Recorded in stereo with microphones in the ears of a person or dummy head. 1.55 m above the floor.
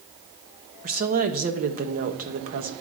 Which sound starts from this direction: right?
A woman speaking, at 0.8 s.